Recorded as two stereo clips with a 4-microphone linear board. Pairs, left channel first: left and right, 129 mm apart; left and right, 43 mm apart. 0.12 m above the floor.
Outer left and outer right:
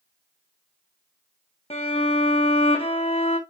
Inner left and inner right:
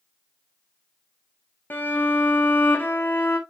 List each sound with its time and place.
1.7 s a violin: 50° left (ahead or behind), 1.3 m